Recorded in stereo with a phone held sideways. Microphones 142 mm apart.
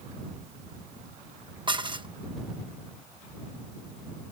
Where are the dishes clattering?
35° right (ahead or behind).